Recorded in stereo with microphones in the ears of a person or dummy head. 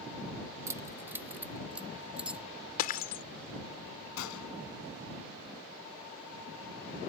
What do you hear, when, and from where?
0.7 s keys jangling: 15° right (ahead or behind); by 2.5 s 5° right (ahead or behind)
2.8 s breaking glass: 45° left (ahead or behind)
4.2 s a gunshot: 75° left (ahead or behind)